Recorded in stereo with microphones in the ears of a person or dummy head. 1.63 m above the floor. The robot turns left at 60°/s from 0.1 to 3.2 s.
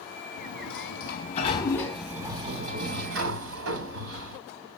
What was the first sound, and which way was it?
A sliding door, 95° left.